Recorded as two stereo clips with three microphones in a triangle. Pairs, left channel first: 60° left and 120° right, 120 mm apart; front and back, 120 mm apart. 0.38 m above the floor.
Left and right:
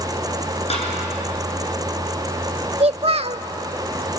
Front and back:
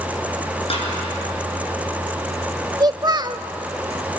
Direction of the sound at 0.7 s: 35° left.